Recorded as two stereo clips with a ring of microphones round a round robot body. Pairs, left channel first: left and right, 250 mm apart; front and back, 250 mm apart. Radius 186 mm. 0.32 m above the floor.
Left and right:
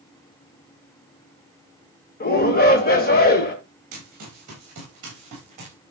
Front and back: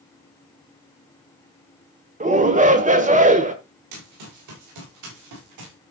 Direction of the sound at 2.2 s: 130° left.